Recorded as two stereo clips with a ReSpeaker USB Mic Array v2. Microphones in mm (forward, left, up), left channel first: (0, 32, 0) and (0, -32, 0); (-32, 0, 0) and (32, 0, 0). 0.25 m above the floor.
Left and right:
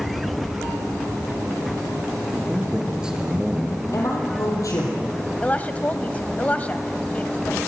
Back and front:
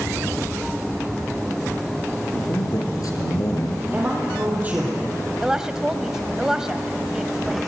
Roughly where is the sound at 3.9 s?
Ahead left.